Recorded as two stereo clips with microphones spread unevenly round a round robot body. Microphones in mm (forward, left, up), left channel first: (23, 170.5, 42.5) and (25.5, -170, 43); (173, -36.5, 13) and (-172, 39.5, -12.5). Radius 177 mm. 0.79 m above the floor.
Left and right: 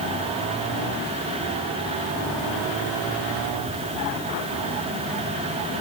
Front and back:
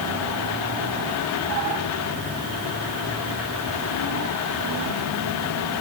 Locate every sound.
Only background noise.